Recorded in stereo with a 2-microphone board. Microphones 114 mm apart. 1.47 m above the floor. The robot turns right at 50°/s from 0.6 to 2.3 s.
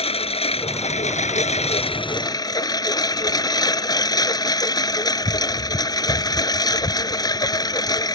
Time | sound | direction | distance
0.0 | a lawn mower | 60° left | ?